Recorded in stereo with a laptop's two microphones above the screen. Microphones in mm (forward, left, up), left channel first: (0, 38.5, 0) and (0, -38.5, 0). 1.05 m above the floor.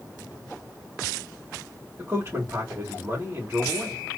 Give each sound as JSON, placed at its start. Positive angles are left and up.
{"t": 2.0, "sound": "a man speaking", "side_deg": -35, "distance_m": 2.0}